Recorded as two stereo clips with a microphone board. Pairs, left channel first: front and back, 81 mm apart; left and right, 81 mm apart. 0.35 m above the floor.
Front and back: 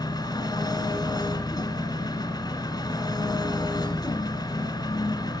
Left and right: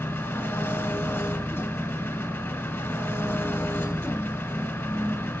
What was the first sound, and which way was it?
An engine running, 30° left.